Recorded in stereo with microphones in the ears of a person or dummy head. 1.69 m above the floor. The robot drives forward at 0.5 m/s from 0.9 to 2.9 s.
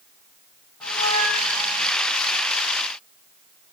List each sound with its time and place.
0.8 s a squeak: 10° left (ahead or behind), 6 m; by 1.9 s 5° left (ahead or behind), 6.5 m